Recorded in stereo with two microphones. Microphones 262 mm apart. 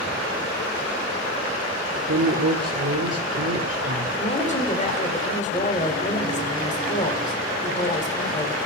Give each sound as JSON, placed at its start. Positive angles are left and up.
{"t": 2.1, "sound": "a woman speaking", "side_deg": -60, "distance_m": 1.1}
{"t": 4.2, "sound": "a woman speaking", "side_deg": 25, "distance_m": 1.9}